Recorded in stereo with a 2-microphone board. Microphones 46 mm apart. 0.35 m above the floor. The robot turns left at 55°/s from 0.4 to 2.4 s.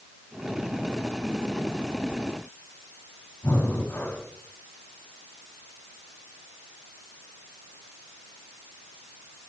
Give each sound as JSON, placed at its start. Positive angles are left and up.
{"t": 3.4, "sound": "breathing", "side_deg": 50, "distance_m": 3.0}